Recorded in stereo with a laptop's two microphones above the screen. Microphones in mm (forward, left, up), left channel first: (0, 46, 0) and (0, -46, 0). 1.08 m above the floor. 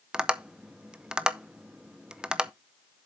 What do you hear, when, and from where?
0.1 s tapping: 10° right (ahead or behind), 0.6 m